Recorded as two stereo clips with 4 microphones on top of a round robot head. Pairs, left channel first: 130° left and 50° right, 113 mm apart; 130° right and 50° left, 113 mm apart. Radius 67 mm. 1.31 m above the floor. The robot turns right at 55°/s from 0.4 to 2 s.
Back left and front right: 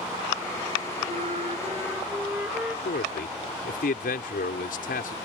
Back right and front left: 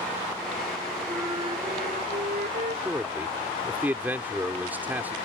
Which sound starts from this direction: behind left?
A man speaking, at 2.9 s.